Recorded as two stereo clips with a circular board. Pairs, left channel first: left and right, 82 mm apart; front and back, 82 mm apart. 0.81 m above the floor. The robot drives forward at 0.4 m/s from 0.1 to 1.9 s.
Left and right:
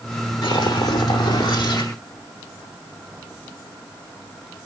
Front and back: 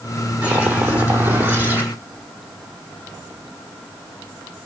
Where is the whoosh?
110° left, 5.5 m; by 1.9 s 115° left, 5.5 m.